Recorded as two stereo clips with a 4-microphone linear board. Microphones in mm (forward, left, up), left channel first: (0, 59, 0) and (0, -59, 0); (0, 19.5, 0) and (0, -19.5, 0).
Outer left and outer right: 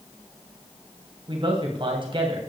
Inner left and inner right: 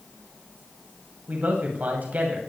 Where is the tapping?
I don't hear tapping.